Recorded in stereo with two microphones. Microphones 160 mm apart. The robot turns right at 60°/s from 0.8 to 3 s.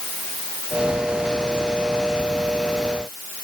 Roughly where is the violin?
I don't hear a violin.